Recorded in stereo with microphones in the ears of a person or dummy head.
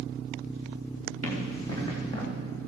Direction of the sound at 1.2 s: 25° left (ahead or behind).